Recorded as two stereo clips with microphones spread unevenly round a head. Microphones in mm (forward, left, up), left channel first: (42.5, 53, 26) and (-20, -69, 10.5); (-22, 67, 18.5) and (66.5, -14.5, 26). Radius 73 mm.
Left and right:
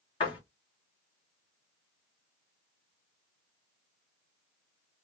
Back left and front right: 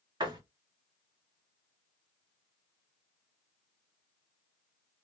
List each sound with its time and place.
0.2 s a door slam: 10° left, 1.3 m